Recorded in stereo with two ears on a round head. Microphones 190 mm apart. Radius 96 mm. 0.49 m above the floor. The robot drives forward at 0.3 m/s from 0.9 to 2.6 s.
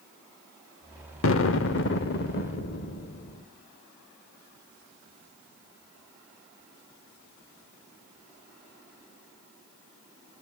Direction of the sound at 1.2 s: 70° left (ahead or behind).